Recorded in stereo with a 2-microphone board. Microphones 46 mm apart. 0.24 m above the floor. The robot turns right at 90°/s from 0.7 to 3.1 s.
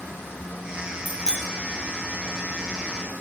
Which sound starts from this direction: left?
A bicycle bell, at 1.1 s.